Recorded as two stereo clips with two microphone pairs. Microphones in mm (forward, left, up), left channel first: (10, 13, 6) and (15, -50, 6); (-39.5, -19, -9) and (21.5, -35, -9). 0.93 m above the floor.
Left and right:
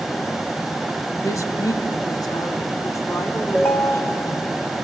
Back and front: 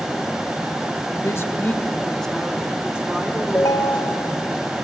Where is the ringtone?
150° left, 1.4 m.